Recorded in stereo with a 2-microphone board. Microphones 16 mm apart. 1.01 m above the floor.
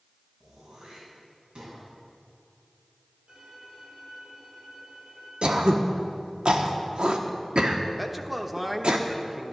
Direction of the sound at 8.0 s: 10° right (ahead or behind).